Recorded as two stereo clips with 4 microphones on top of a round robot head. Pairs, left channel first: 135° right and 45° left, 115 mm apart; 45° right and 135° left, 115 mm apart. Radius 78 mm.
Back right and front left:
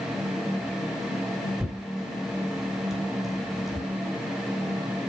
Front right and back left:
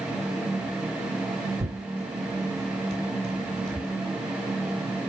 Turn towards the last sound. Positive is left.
turn(degrees=135)